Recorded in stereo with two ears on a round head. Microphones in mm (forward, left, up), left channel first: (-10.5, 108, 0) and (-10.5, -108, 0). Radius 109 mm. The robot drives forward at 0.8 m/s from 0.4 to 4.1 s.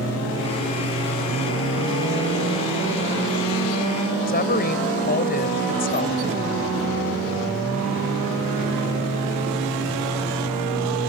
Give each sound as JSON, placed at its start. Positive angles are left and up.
{"t": 4.3, "sound": "a woman speaking", "side_deg": 40}